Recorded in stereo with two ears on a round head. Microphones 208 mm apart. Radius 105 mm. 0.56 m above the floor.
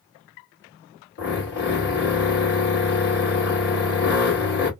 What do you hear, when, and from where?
1.2 s a drill: 50° left (ahead or behind), 1.4 m